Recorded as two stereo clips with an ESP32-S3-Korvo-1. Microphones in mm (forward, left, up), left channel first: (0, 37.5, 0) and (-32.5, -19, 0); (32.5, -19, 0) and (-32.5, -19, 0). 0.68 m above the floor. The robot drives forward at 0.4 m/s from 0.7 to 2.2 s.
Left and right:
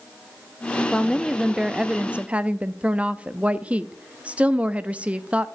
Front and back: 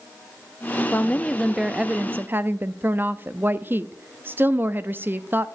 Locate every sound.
0.9 s a woman speaking: 10° right, 0.5 m; by 5.5 s 175° right, 0.5 m